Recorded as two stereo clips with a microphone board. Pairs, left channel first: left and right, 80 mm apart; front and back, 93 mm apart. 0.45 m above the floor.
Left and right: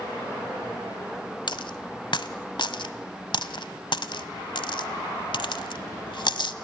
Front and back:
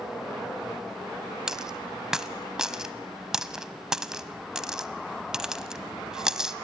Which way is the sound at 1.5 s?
95° left.